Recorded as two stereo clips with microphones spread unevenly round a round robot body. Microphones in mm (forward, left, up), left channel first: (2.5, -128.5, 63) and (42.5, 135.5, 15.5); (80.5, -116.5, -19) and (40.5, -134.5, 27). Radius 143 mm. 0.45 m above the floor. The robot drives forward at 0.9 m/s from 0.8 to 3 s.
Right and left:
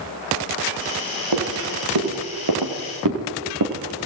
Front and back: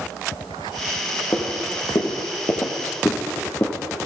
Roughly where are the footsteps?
Left.